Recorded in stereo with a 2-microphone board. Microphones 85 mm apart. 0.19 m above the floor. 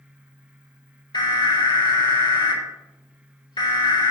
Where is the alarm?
65° left (ahead or behind), 5.5 m.